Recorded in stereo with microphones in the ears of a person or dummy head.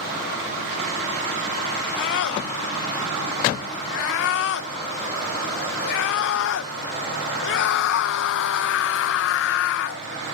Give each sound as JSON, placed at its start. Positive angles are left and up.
{"t": 2.0, "sound": "a scream", "side_deg": 70}